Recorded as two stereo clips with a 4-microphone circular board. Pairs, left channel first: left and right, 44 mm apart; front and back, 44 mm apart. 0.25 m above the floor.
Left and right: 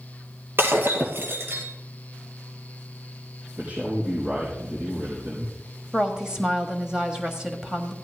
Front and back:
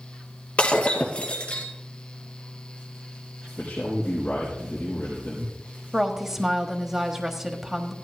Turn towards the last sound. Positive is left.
turn(degrees=-120)